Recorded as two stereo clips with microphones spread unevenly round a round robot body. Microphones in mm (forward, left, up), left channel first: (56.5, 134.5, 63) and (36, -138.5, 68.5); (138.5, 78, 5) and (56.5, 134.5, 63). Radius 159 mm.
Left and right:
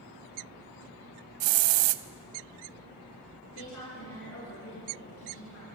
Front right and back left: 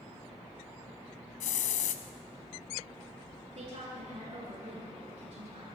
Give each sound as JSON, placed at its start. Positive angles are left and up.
{"t": 1.4, "sound": "a hiss", "azimuth_deg": -70, "distance_m": 0.5}
{"t": 3.5, "sound": "a woman speaking", "azimuth_deg": 130, "distance_m": 8.5}